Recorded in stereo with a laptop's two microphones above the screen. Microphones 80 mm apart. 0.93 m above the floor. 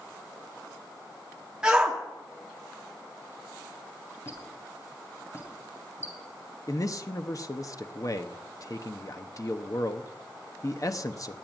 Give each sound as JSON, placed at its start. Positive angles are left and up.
{"t": 1.6, "sound": "a shout", "side_deg": -10, "distance_m": 2.0}
{"t": 4.2, "sound": "a squeak", "side_deg": 35, "distance_m": 2.5}
{"t": 6.7, "sound": "a man speaking", "side_deg": 45, "distance_m": 0.8}